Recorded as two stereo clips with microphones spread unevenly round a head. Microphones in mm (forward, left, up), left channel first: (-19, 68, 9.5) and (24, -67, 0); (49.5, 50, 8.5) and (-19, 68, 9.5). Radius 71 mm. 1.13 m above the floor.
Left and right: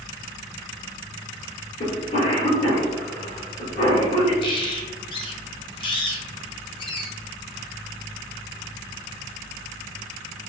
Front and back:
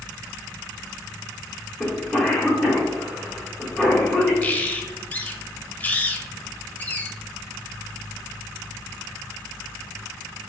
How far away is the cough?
About 1.6 m.